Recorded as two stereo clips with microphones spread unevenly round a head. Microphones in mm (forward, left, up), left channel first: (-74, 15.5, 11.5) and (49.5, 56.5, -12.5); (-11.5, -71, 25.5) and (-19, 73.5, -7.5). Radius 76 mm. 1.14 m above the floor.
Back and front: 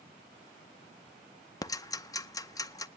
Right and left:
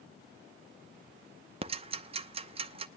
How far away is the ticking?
About 0.7 m.